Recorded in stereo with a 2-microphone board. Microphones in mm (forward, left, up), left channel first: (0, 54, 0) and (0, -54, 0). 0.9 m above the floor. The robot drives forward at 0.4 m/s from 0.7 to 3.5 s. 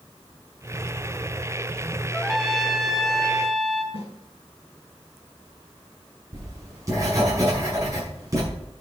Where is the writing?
30° right (ahead or behind), 5.5 m.